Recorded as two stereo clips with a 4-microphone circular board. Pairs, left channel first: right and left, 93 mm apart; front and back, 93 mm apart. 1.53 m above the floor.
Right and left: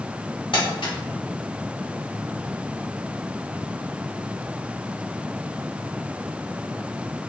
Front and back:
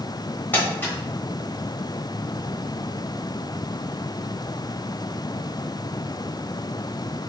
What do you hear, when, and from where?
0.5 s crumpling: 70° right, 1.0 m